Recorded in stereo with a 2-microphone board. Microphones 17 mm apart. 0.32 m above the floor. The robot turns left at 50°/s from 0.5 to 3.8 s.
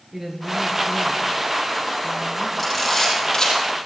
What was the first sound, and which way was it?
A woman speaking, 20° right.